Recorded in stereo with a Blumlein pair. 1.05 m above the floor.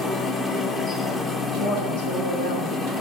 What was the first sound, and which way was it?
A machine running, 10° left.